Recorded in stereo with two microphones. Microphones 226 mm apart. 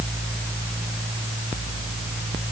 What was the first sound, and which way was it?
Only background noise.